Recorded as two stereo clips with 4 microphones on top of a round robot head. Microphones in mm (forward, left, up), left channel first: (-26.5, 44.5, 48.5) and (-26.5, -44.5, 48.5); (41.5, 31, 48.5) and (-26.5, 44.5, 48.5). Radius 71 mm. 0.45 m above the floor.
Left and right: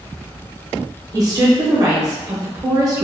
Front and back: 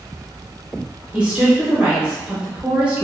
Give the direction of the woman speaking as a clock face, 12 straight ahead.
4 o'clock.